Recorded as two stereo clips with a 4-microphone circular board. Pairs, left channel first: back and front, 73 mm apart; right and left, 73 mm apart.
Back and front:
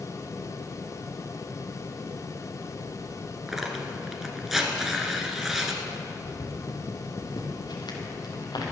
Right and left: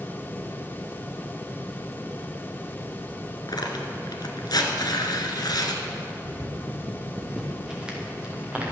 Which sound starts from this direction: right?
Tearing paper, at 3.5 s.